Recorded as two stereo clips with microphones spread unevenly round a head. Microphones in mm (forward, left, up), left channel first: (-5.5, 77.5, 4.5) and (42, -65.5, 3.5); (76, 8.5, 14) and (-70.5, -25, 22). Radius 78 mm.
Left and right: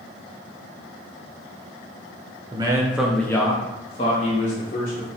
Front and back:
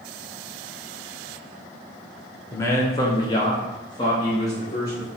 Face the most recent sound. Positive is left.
turn(degrees=80)